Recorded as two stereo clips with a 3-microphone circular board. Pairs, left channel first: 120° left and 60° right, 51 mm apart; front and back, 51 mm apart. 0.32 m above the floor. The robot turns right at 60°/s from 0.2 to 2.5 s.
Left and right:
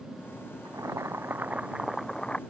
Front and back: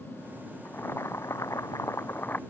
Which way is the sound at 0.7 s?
55° right.